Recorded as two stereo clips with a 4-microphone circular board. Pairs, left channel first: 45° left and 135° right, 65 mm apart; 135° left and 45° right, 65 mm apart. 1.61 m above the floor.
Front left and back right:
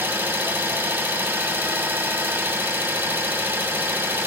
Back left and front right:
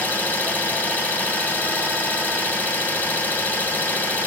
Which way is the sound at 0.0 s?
Straight behind.